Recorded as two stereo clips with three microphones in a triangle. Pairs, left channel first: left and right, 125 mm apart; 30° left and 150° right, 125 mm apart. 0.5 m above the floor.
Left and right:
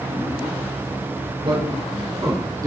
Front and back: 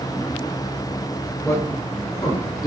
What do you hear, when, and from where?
1.4 s a man speaking: 40° right, 7.5 m; by 2.7 s 25° right, 7 m